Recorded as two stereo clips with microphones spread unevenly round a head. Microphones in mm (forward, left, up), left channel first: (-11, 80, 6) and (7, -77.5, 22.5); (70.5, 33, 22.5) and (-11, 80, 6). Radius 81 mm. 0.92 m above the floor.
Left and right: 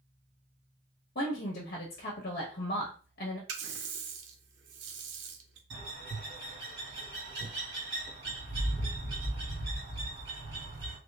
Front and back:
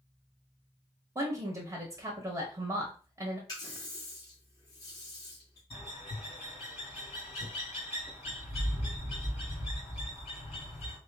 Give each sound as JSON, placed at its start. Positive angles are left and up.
{"t": 1.1, "sound": "a woman speaking", "azimuth_deg": 100, "distance_m": 0.9}
{"t": 3.5, "sound": "a running tap", "azimuth_deg": -100, "distance_m": 0.5}
{"t": 5.7, "sound": "a bird", "azimuth_deg": -80, "distance_m": 2.0}